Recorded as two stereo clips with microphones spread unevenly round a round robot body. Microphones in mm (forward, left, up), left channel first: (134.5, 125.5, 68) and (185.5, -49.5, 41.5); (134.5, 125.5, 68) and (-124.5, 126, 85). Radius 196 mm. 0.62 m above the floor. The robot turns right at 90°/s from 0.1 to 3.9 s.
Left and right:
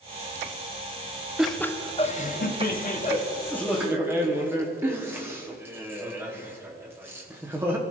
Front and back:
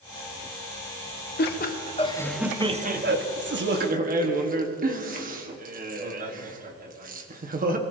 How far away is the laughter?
About 1.3 m.